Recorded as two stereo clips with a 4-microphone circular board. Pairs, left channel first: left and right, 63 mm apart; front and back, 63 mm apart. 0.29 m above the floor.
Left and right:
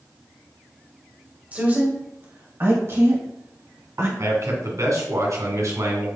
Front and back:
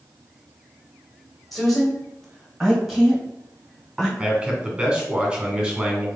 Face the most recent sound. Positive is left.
turn(degrees=-100)